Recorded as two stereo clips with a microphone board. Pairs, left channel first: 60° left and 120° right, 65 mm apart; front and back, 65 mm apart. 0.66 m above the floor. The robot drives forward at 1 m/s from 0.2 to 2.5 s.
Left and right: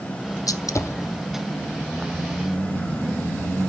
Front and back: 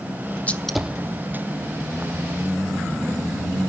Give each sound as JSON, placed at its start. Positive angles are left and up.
{"t": 0.5, "sound": "a gunshot", "azimuth_deg": 65, "distance_m": 0.7}